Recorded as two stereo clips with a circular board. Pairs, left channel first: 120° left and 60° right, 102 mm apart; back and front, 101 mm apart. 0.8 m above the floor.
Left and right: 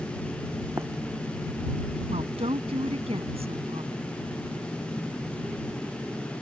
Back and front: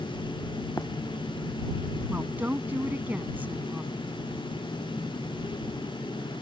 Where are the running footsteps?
120° right.